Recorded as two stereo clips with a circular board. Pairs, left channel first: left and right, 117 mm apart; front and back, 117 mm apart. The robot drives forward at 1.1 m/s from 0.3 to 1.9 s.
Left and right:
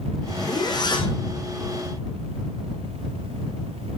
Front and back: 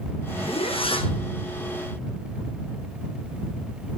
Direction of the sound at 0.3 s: 35° left.